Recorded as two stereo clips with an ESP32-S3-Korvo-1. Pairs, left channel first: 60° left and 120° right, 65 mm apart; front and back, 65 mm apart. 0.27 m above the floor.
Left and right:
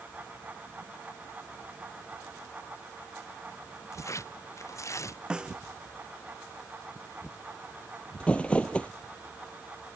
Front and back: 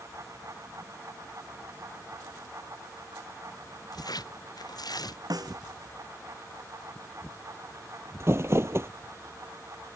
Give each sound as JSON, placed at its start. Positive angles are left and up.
{"t": 3.9, "sound": "tearing paper", "azimuth_deg": 15}
{"t": 5.3, "sound": "a snare drum", "azimuth_deg": 160}
{"t": 8.2, "sound": "crumpling", "azimuth_deg": 130}